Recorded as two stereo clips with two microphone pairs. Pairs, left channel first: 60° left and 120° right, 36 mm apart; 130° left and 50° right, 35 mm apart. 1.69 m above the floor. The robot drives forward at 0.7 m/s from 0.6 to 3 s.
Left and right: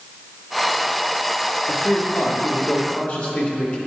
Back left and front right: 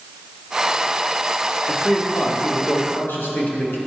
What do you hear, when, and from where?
1.7 s a man speaking: 75° left, 1.2 m; by 3.8 s 120° left, 1.3 m